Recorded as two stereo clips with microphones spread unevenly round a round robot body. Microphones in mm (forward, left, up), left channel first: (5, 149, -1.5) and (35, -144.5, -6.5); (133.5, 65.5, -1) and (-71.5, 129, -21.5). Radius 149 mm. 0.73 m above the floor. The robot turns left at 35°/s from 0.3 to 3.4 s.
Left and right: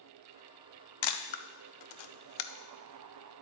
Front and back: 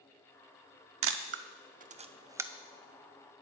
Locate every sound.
1.0 s a camera shutter: 130° left, 0.6 m; by 2.5 s 80° left, 0.6 m